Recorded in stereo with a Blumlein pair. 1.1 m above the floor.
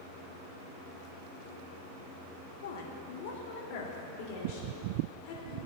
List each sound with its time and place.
2.6 s a woman speaking: 60° left, 1.5 m; by 5.6 s 40° left, 3 m